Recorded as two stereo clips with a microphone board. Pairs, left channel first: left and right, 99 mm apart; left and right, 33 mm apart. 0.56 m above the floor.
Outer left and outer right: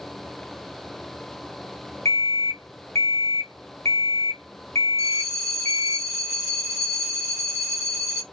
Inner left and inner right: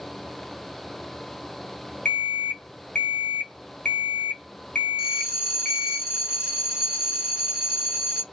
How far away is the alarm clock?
About 0.6 m.